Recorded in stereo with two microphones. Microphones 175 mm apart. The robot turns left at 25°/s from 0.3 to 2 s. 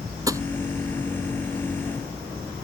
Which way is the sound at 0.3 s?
20° right (ahead or behind).